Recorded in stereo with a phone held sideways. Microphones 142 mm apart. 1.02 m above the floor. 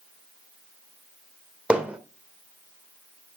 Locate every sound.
1.7 s hammering: 10° right (ahead or behind), 1.9 m